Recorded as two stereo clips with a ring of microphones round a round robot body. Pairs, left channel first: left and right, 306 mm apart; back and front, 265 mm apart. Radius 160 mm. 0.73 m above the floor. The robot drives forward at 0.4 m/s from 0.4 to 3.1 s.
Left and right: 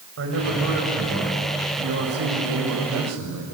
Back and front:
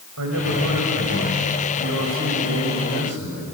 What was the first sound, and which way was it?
A man speaking, 40° right.